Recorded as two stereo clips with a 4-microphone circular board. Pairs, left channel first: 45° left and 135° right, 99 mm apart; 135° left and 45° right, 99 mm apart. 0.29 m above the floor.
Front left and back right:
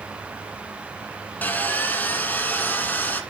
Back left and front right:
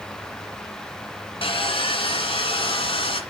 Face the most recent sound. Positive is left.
turn(degrees=115)